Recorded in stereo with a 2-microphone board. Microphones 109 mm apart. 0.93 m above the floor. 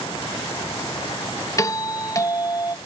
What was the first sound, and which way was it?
A doorbell, 30° left (ahead or behind).